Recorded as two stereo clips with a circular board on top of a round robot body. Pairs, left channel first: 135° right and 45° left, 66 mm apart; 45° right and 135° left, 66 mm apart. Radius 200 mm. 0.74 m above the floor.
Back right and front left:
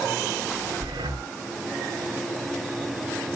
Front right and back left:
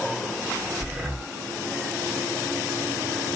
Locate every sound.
0.8 s breathing: 50° left, 0.8 m